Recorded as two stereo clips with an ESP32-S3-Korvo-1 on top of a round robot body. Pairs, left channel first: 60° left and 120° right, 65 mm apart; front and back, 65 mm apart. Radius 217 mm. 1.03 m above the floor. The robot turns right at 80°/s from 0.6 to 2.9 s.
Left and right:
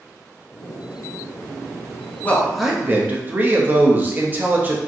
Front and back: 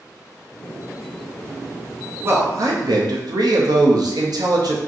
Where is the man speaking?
125° left, 0.9 m; by 4.8 s straight behind, 0.9 m.